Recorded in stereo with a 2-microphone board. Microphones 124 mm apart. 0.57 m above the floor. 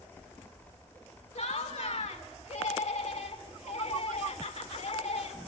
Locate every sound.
1.4 s laughter: 60° left (ahead or behind), 1.5 m